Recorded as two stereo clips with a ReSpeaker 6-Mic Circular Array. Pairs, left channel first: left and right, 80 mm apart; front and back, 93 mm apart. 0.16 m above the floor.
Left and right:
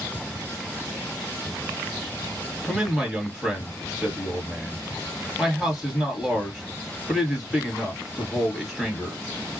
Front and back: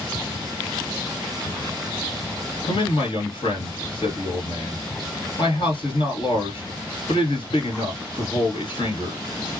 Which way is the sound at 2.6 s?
5° right.